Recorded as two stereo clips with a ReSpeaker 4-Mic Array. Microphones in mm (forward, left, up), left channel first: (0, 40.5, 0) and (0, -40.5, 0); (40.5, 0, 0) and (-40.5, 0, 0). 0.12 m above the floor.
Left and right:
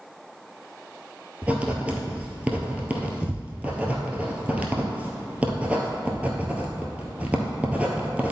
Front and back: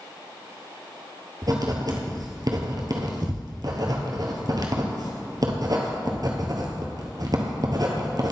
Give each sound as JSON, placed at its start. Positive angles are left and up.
{"t": 1.4, "sound": "writing", "azimuth_deg": -160, "distance_m": 1.1}